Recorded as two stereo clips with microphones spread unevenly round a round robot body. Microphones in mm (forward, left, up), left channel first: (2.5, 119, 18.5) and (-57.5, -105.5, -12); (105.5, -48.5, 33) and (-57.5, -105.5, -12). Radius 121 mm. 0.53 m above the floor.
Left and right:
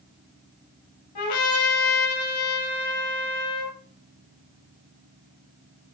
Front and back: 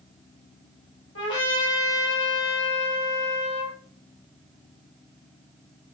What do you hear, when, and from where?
1.1 s a trumpet: 60° left, 6.5 m